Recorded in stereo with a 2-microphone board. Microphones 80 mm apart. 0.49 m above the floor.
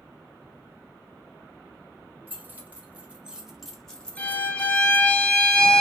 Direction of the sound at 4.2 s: 15° left (ahead or behind).